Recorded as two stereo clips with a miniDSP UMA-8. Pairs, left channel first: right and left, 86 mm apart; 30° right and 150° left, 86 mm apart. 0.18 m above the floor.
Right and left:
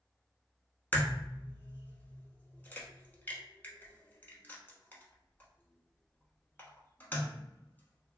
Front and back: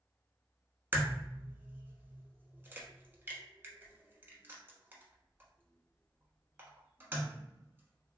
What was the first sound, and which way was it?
A crack, 155° right.